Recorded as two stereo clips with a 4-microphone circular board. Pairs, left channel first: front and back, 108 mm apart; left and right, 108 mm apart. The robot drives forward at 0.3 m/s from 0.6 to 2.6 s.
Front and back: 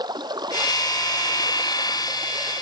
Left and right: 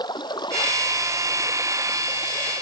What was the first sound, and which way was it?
Running water, 135° left.